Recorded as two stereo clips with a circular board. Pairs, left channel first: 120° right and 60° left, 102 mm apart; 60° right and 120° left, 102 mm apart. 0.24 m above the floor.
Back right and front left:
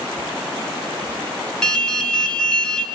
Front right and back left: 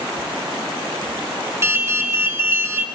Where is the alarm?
165° left, 2 m.